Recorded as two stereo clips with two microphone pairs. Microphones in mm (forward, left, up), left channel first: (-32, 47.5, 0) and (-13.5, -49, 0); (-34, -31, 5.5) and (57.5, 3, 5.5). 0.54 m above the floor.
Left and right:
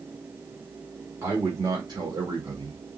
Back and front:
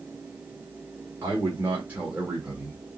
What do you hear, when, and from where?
1.2 s a man speaking: 30° right, 1.3 m; by 2.8 s 65° right, 1.6 m